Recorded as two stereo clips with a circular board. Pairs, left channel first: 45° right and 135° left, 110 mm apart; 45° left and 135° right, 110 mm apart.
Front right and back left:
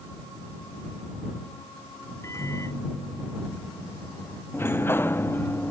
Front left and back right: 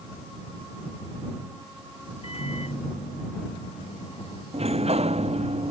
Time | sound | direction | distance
2.2 | a microwave | 20° left | ?
4.5 | a sliding door | 115° right | ?